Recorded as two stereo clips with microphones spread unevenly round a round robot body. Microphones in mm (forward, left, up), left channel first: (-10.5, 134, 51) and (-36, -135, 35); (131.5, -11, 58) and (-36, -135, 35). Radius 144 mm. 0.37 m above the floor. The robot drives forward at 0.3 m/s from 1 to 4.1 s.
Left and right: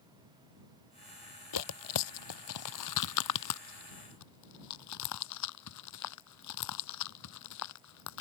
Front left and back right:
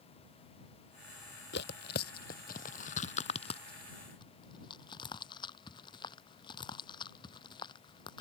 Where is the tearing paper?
90° left; by 8.2 s 110° left.